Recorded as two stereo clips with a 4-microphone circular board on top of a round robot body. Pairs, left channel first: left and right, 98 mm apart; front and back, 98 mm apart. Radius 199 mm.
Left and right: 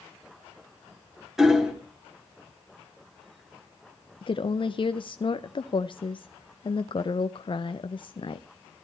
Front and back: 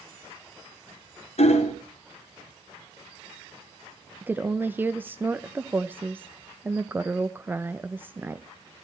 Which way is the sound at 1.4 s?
5° right.